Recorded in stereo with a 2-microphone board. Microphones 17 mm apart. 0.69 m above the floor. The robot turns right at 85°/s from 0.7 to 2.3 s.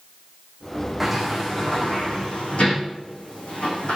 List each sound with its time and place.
1.0 s a sliding door: 15° right (ahead or behind), 7.5 m; by 4.0 s 85° left, 7.5 m